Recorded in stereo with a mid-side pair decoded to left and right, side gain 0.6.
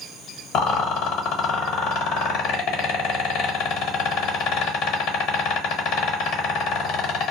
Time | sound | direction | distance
0.5 | a rattle | 65° left | 1.1 m